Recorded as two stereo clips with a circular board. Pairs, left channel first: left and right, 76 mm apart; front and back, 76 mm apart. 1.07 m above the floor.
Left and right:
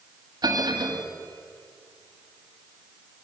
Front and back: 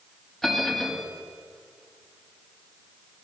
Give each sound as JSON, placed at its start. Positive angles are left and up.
{"t": 0.4, "sound": "a bell", "azimuth_deg": -85, "distance_m": 1.5}